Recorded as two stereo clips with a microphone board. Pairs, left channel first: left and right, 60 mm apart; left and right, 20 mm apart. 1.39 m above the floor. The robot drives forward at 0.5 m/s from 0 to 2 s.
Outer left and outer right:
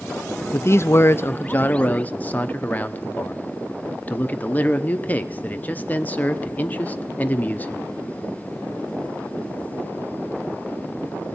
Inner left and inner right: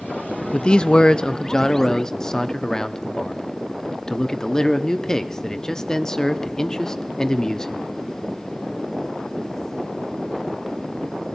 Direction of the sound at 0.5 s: 45° left (ahead or behind).